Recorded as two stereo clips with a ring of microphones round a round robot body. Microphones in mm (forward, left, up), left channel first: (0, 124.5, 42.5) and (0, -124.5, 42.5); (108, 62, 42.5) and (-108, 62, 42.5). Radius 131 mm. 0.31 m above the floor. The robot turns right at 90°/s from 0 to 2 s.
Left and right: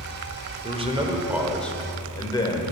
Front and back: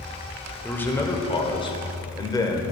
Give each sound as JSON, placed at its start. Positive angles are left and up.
{"t": 0.6, "sound": "a man speaking", "azimuth_deg": -80, "distance_m": 1.2}